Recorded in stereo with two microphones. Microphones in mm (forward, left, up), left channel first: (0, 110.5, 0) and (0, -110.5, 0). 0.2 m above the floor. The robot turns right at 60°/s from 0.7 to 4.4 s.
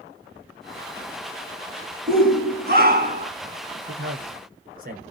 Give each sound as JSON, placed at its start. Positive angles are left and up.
{"t": 2.1, "sound": "a shout", "azimuth_deg": -125, "distance_m": 2.0}
{"t": 3.9, "sound": "a man speaking", "side_deg": -60, "distance_m": 2.5}